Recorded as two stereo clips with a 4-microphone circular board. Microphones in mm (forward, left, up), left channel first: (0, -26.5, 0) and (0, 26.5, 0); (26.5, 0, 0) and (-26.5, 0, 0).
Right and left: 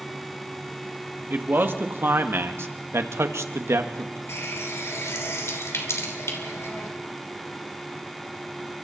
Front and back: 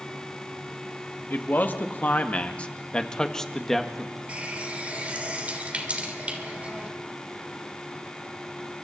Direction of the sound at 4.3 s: 115° right.